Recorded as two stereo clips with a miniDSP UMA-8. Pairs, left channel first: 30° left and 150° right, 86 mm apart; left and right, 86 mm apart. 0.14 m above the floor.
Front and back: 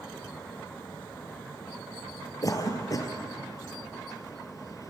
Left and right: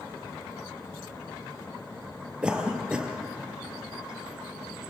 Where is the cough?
10° right, 3 m.